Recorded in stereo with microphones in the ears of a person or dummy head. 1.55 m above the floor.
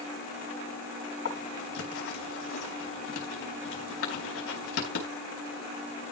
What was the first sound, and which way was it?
Writing, 75° left (ahead or behind).